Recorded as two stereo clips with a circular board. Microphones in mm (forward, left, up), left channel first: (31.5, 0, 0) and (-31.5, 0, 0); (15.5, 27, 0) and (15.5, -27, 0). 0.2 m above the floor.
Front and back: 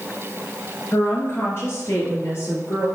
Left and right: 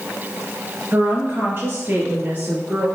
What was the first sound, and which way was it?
A woman speaking, 45° right.